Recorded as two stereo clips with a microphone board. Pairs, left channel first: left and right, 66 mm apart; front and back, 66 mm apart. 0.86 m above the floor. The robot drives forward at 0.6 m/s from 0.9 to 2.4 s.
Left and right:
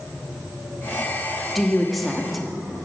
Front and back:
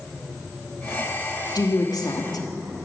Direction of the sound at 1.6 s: Straight ahead.